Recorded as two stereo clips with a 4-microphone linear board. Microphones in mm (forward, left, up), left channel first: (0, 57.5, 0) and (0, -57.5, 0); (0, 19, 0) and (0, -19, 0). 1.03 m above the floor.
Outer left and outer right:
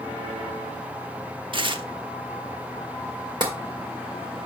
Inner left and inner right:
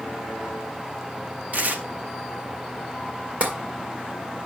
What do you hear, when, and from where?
1.5 s tearing paper: 45° right (ahead or behind), 0.8 m
3.4 s tapping: 40° right (ahead or behind), 2 m